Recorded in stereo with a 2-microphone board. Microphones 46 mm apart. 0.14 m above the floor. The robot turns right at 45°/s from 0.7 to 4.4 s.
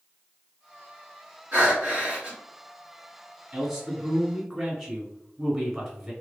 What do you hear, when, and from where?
1.5 s breathing: 70° right, 2.0 m; by 2.4 s 30° right, 2.0 m
3.5 s a man speaking: 20° right (ahead or behind), 1.4 m; by 6.1 s 5° right (ahead or behind), 1.4 m